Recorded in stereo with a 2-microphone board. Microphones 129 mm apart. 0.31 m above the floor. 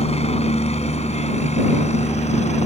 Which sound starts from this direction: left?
A helicopter, at 0.0 s.